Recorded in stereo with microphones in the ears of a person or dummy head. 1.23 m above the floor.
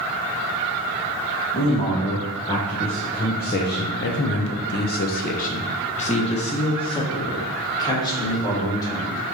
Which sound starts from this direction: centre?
A man speaking, at 1.5 s.